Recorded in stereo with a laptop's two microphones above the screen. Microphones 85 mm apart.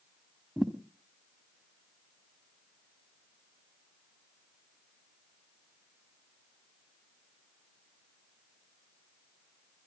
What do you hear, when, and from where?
0.6 s a thud: centre (ahead or behind), 1.2 m